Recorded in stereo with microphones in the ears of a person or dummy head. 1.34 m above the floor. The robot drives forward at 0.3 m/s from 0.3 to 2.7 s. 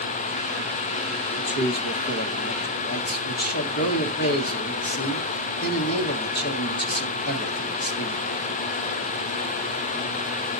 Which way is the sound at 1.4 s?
65° left (ahead or behind).